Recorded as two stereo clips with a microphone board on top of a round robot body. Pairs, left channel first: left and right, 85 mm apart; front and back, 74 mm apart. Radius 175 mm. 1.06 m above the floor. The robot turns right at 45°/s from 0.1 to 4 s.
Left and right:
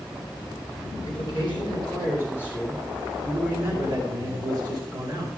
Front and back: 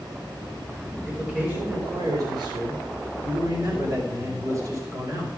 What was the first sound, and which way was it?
A man speaking, 95° left.